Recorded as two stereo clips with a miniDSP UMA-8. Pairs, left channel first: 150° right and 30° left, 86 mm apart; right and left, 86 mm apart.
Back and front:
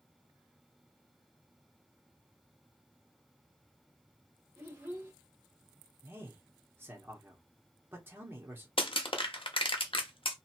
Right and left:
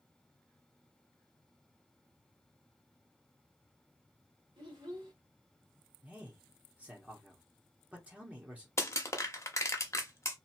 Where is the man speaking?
40° left, 0.9 m.